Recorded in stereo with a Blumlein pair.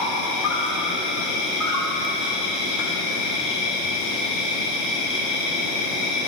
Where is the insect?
30° left, 1.1 m.